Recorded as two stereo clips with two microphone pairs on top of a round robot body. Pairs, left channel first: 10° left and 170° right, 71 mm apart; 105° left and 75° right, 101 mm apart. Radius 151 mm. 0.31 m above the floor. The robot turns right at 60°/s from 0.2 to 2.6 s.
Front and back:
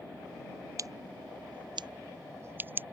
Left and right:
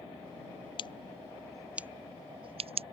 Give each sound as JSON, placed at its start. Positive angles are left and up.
{"t": 0.8, "sound": "scissors", "azimuth_deg": 145}